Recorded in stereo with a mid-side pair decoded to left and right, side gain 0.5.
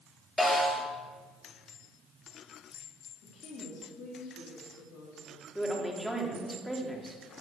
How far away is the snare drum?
About 7.5 m.